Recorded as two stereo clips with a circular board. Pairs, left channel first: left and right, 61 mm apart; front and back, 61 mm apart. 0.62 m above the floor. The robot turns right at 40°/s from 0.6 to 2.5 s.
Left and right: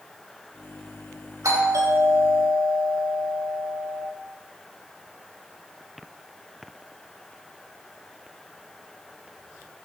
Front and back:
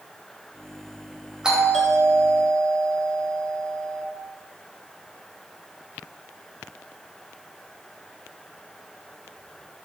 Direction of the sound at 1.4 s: 100° right.